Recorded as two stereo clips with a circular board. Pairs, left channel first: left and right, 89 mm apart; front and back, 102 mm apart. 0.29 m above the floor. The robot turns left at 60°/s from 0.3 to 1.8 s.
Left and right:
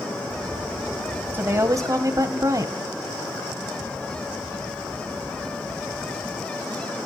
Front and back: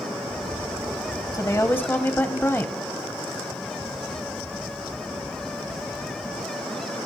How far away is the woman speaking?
About 1.3 m.